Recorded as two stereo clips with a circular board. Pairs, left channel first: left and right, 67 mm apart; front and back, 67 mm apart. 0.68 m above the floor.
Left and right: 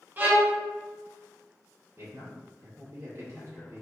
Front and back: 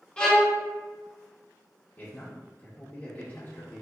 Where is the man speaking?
55° right, 1.6 m.